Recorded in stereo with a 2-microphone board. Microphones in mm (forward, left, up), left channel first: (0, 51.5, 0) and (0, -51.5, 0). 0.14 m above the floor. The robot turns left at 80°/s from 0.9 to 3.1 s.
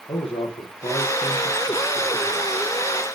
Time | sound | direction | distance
0.1 | a man speaking | 90° left | 3.5 m